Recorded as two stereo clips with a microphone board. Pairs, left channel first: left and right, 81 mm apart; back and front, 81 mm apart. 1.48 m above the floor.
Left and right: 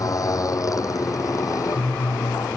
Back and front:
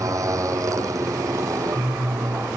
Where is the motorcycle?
45° left.